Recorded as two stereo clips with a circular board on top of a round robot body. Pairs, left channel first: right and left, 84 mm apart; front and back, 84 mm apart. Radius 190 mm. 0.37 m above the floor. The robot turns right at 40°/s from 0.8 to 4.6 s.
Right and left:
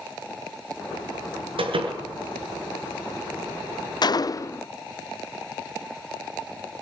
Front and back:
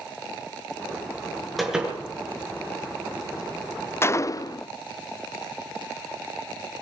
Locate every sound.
1.6 s a door slam: 90° left, 6.5 m; by 2.0 s 105° left, 6.5 m
4.0 s a gunshot: 60° right, 0.5 m; by 4.7 s 35° right, 0.5 m